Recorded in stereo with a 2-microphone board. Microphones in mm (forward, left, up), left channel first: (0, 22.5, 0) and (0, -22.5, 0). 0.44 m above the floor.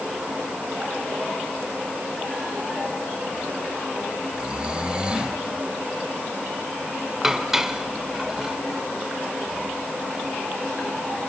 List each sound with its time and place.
4.3 s snoring: 20° right (ahead or behind), 1.1 m
7.2 s dishes clattering: 10° right (ahead or behind), 1.0 m